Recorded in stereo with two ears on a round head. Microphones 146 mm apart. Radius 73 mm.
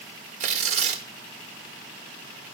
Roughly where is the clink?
I don't hear a clink.